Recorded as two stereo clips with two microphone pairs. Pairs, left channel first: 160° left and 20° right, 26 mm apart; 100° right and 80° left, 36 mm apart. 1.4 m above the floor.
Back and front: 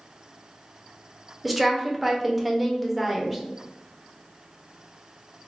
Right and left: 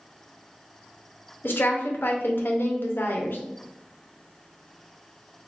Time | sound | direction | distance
1.4 | a woman speaking | 100° right | 0.6 m